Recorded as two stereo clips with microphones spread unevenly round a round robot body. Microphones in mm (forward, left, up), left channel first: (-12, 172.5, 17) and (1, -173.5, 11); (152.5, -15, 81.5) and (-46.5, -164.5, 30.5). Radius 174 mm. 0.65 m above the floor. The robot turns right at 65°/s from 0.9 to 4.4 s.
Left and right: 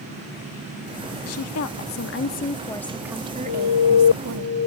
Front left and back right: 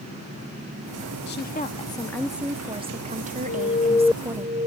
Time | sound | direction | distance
1.3 | a woman speaking | 75° left | ?
3.5 | an alarm | 85° left | ?